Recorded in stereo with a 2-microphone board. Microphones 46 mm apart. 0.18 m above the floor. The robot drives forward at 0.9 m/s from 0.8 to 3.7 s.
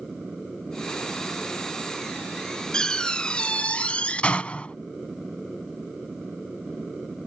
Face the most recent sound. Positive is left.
turn(degrees=30)  # may be behind; listen again after turning